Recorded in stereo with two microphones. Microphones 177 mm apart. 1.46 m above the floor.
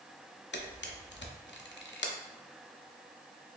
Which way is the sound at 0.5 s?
85° left.